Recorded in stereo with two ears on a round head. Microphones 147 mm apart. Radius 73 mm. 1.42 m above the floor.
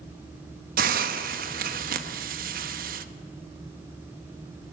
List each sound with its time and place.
0.8 s a hiss: 60° right (ahead or behind), 1.1 m